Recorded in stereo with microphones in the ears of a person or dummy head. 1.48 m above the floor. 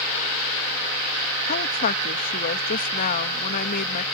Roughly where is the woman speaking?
Left.